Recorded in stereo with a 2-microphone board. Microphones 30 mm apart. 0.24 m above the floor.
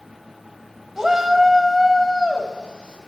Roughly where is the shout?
Centre.